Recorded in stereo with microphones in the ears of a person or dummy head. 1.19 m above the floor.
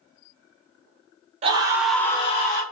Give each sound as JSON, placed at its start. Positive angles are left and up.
{"t": 1.4, "sound": "a scream", "side_deg": -30, "distance_m": 0.8}